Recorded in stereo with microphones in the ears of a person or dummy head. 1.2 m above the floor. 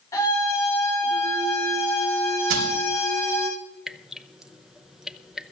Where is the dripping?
Centre (ahead or behind), 0.7 m.